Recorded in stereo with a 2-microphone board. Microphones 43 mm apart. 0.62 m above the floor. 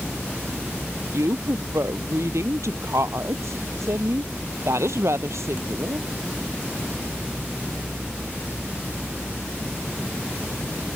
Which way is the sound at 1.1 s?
85° right.